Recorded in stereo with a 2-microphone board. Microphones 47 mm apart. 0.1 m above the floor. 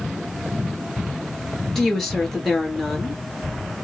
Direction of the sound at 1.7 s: 5° left (ahead or behind).